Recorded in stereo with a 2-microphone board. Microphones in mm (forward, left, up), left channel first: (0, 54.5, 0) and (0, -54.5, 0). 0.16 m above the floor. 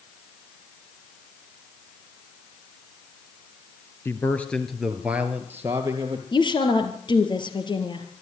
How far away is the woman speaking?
About 3.5 m.